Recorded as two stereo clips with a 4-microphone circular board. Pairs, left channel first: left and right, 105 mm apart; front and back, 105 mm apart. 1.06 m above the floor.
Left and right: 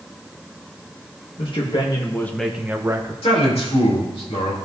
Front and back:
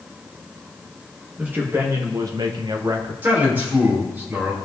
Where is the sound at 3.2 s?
110° left, 3 m.